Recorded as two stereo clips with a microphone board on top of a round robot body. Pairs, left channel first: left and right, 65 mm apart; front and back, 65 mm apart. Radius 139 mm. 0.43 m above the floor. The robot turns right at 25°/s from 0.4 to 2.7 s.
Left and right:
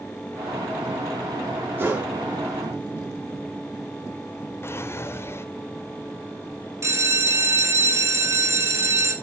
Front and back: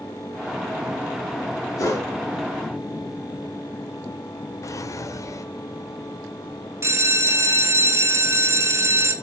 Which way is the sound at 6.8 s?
135° right.